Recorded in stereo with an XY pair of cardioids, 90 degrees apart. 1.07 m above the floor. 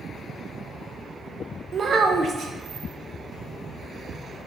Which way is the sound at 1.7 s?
55° right.